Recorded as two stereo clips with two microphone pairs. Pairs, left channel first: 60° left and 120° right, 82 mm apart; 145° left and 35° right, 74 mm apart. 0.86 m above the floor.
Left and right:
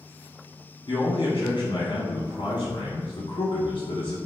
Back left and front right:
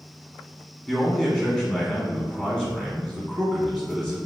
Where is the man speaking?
45° left, 1.2 m.